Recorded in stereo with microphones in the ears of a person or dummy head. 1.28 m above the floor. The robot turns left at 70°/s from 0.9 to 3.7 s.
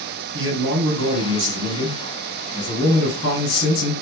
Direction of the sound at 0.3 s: 75° right.